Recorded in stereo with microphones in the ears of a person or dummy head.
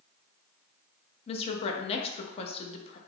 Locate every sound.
1.3 s a woman speaking: 35° left (ahead or behind), 0.7 m